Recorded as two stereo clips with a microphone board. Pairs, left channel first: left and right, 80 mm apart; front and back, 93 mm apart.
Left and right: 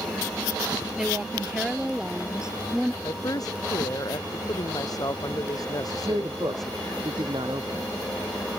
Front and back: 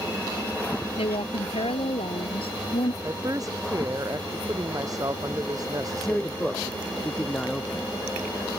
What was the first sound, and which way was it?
A woman speaking, 10° right.